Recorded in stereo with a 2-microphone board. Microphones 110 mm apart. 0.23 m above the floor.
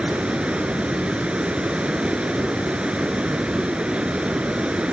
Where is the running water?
10° right (ahead or behind), 0.8 m.